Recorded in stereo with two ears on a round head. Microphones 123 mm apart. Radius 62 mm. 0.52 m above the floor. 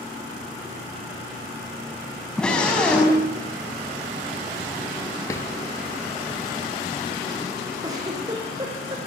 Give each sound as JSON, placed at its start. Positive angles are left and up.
{"t": 2.4, "sound": "a scream", "side_deg": 5, "distance_m": 5.0}
{"t": 5.3, "sound": "a drawer", "side_deg": 20, "distance_m": 3.5}
{"t": 7.8, "sound": "a giggle", "side_deg": -30, "distance_m": 8.0}